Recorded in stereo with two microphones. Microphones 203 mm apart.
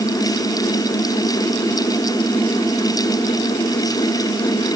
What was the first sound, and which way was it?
Only background noise.